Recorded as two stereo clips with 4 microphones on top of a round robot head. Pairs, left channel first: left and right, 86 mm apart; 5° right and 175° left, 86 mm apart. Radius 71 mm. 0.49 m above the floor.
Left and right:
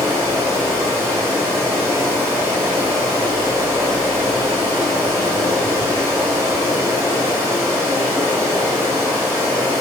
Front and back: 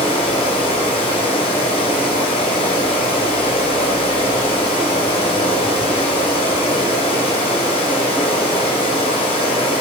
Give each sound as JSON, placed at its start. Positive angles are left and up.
{"t": 0.0, "sound": "running water", "azimuth_deg": -20, "distance_m": 0.9}